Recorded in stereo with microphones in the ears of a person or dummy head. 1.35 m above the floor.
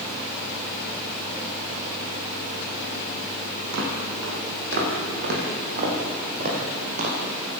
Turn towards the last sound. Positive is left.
turn(degrees=-40)  # may be behind; listen again after turning